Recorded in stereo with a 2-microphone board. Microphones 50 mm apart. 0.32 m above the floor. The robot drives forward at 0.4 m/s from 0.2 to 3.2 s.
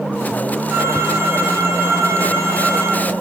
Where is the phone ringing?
60° right (ahead or behind), 5 m; by 3.1 s 65° right (ahead or behind), 4.5 m.